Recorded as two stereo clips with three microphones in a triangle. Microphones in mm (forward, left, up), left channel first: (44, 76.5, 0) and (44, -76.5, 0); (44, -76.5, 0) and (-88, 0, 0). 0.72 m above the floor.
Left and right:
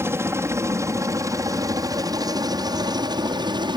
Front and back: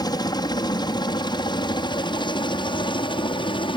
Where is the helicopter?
40° right; by 3.8 s 55° right.